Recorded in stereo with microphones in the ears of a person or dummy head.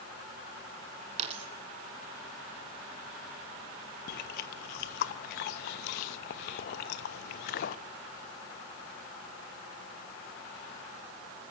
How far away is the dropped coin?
About 2.5 m.